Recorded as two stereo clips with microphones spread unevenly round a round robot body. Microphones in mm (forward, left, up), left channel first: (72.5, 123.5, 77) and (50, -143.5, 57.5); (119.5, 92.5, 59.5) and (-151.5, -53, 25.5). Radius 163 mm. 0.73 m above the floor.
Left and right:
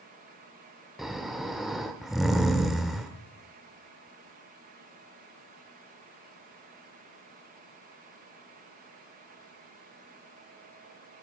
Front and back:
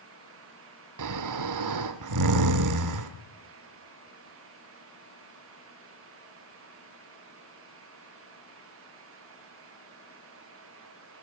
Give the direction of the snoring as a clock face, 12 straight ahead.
6 o'clock.